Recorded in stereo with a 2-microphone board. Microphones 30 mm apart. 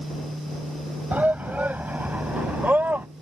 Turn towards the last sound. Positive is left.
turn(degrees=-75)  # may be behind; listen again after turning